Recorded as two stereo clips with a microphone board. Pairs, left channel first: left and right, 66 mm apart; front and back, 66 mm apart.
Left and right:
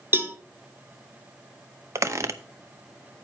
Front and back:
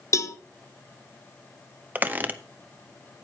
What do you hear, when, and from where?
0.1 s a cowbell: 35° right, 0.8 m
1.9 s a squeak: 120° right, 0.7 m